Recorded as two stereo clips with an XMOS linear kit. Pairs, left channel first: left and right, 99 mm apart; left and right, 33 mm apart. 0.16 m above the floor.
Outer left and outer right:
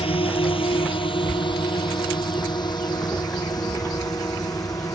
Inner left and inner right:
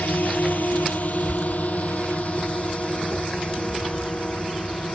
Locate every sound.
0.0 s a drone: 70° left (ahead or behind); by 5.0 s 40° left (ahead or behind)